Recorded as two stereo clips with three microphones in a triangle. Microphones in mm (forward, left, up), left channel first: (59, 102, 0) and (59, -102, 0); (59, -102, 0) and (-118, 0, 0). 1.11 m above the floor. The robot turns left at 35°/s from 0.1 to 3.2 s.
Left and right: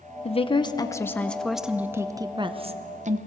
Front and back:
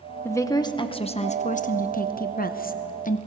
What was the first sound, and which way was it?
A woman speaking, 45° left.